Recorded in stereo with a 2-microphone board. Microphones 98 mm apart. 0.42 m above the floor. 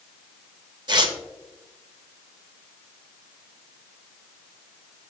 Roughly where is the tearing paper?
Right.